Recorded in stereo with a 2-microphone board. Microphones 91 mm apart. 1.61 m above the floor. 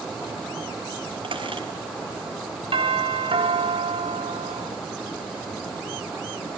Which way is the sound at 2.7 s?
75° right (ahead or behind).